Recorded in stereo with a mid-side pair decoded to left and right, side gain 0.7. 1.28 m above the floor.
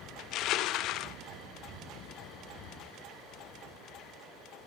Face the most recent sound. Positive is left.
turn(degrees=55)